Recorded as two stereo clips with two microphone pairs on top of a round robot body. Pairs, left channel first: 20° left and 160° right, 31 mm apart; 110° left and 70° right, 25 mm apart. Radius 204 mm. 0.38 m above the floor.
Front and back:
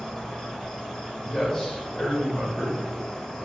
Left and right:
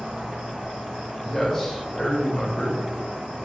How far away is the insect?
About 1.0 m.